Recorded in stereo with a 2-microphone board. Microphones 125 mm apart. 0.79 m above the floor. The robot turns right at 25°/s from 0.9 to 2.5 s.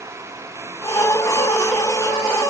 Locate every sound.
Only background noise.